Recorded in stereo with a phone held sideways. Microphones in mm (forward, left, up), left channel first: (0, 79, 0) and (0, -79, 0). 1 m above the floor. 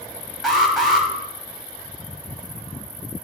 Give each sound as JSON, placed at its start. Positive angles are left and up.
{"t": 0.4, "sound": "an alarm", "side_deg": 0, "distance_m": 3.0}